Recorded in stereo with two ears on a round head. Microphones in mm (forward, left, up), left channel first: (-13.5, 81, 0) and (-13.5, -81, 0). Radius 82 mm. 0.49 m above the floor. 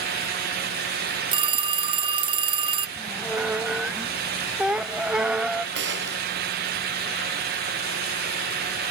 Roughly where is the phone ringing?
Right.